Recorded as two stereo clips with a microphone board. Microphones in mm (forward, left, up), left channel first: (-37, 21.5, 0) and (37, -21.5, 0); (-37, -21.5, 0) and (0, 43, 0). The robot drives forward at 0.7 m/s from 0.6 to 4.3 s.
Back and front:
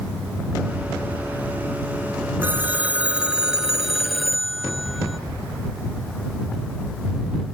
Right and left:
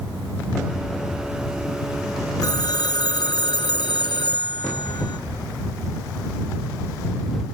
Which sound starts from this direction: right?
A phone ringing, at 2.4 s.